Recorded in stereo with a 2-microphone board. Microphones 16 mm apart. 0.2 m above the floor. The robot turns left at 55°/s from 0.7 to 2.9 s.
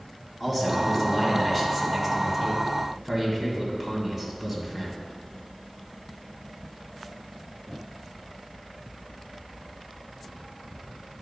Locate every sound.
0.4 s a man speaking: 15° left (ahead or behind), 1.5 m; by 5.0 s 20° right (ahead or behind), 1.5 m